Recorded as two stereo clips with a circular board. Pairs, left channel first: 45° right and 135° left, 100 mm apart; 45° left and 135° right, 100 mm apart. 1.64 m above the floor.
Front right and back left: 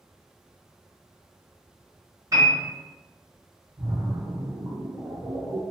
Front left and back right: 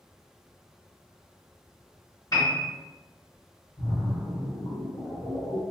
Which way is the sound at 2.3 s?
90° left.